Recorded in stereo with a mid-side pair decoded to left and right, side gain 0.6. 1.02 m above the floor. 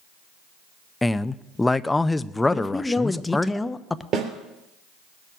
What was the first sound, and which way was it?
A man speaking, 15° left.